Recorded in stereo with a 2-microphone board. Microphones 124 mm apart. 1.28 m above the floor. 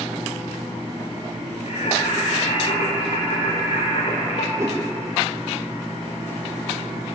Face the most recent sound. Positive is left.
turn(degrees=-25)  # may be behind; listen again after turning